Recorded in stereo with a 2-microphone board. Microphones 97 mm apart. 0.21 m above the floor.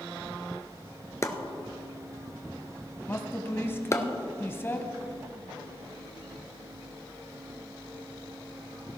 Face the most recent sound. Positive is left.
turn(degrees=25)  # may be behind; listen again after turning